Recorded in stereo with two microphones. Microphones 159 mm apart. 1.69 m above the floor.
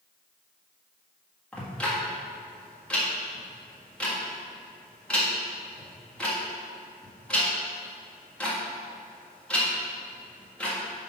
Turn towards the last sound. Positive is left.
turn(degrees=5)  # may be behind; listen again after turning